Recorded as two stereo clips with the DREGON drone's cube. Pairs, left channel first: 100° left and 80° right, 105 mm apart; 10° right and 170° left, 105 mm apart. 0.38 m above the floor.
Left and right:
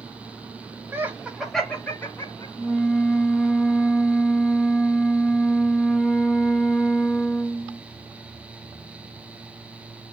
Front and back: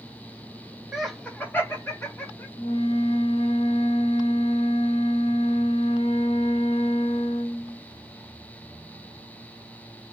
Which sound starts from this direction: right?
Laughter, at 0.9 s.